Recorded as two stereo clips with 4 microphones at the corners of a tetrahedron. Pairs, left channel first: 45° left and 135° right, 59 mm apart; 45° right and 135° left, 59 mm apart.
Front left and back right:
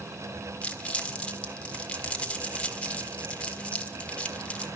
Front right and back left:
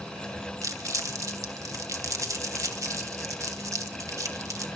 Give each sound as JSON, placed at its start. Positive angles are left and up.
{"t": 0.6, "sound": "crumpling", "azimuth_deg": 115, "distance_m": 1.3}